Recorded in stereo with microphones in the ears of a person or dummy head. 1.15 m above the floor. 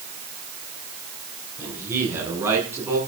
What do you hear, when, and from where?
1.6 s a man speaking: 15° right (ahead or behind), 9 m; by 3.0 s 10° right (ahead or behind), 10 m